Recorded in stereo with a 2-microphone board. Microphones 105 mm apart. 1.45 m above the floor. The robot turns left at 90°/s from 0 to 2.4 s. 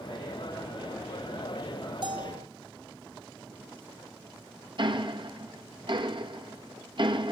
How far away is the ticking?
About 1.9 m.